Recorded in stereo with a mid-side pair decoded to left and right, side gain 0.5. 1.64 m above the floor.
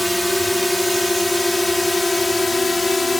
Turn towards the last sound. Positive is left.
turn(degrees=20)